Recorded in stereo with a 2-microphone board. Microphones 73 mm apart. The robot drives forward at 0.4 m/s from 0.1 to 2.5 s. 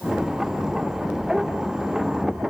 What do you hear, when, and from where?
Only background noise.